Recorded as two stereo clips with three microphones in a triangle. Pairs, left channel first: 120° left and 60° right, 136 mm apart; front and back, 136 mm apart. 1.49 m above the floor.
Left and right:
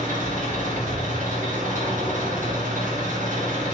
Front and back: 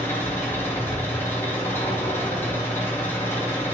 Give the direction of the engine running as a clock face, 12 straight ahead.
2 o'clock.